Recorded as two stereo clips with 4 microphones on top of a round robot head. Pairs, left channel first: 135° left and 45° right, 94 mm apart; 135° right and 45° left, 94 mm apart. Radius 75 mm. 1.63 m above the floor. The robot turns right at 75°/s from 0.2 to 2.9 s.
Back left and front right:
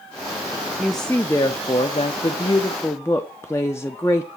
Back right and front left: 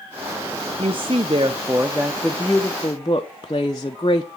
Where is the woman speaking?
35° left, 0.6 m; by 4.3 s 170° right, 0.6 m.